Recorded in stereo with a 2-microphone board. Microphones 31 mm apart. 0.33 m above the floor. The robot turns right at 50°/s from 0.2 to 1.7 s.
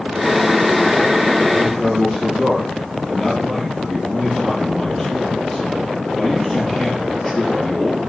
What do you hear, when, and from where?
1.5 s a man speaking: 15° right (ahead or behind), 5.5 m; by 8.0 s 5° right (ahead or behind), 5.5 m